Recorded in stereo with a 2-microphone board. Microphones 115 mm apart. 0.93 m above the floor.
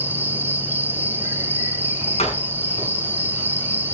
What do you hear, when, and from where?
0.0 s an insect: 15° right (ahead or behind), 2 m
2.2 s a door slam: 65° left (ahead or behind), 7 m